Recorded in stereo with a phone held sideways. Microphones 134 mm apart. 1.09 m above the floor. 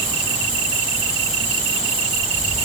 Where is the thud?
I don't hear a thud.